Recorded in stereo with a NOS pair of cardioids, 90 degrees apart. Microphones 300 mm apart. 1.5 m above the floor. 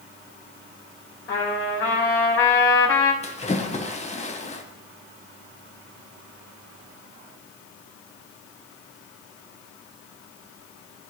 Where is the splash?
20° left, 1.4 m.